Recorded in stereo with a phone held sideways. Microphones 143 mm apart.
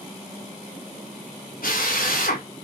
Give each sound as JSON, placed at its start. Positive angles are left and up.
{"t": 1.6, "sound": "a drill", "side_deg": 85, "distance_m": 4.0}